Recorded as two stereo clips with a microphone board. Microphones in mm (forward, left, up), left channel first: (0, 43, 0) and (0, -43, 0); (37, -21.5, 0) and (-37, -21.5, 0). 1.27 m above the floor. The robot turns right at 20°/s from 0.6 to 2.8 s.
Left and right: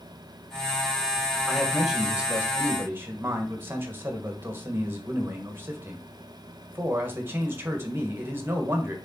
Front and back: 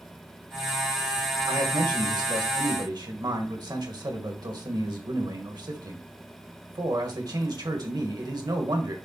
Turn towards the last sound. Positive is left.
turn(degrees=-155)